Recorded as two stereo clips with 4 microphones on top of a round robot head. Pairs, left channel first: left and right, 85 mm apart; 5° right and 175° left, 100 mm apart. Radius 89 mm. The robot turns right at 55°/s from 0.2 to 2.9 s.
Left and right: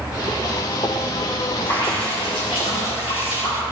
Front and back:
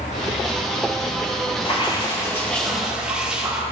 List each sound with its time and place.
1.6 s dripping: 25° left, 3 m; by 3.6 s 95° left, 3 m